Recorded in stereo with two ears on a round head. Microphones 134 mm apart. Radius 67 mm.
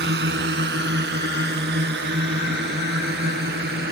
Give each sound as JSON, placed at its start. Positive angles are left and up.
{"t": 0.0, "sound": "a drone", "side_deg": -80}